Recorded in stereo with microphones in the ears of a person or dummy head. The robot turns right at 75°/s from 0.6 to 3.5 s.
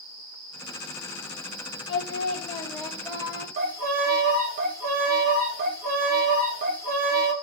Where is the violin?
50° right (ahead or behind), 0.7 m.